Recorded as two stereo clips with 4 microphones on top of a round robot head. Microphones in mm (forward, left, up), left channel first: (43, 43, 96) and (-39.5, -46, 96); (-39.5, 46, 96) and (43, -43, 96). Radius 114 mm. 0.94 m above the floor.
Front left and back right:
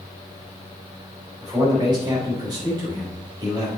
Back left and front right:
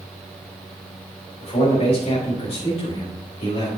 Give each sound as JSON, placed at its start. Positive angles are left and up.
{"t": 1.4, "sound": "a man speaking", "azimuth_deg": 170, "distance_m": 4.5}